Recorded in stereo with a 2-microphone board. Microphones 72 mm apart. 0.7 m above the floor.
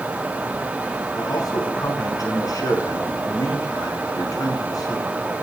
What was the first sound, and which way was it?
A man speaking, 55° left (ahead or behind).